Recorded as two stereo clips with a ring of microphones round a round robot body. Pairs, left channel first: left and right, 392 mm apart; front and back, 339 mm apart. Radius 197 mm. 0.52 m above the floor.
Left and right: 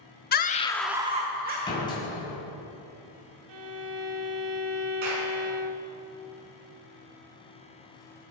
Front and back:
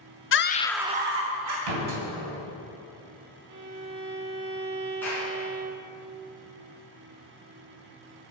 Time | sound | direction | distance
0.3 | a scream | 35° left | 0.9 m
1.7 | a door slam | 170° left | 3 m
3.5 | a violin | 130° right | 0.9 m
5.0 | a clap | 85° right | 4 m